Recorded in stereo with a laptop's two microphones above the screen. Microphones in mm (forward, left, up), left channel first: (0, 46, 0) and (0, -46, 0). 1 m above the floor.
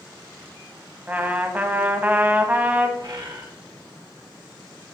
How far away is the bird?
About 1.8 m.